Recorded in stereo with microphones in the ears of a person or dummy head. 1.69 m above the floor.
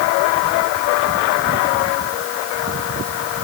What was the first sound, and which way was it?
Only background noise.